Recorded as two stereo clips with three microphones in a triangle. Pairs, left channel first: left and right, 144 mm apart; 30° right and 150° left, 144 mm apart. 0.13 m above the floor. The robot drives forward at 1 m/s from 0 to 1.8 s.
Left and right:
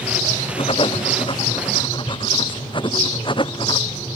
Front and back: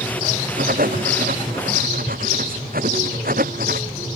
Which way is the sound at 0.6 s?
140° left.